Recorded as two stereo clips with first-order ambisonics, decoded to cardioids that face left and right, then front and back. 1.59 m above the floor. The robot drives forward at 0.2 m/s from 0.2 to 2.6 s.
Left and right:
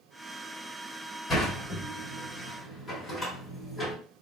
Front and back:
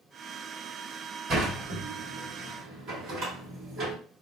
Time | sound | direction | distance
1.3 | a sliding door | 145° left | 1.4 m